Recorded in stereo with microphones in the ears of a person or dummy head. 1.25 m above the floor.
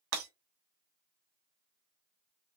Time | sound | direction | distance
0.1 | breaking glass | 80° right | 2 m